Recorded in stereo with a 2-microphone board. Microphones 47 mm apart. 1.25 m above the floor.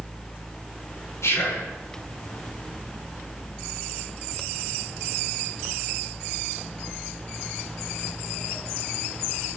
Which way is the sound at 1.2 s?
80° left.